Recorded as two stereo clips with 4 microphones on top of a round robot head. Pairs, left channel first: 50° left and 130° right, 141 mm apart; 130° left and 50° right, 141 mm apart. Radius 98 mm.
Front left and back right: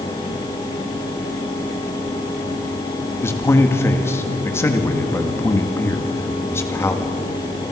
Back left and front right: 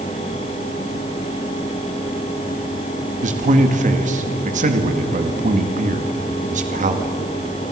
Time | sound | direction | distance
3.2 | a man speaking | 20° right | 2 m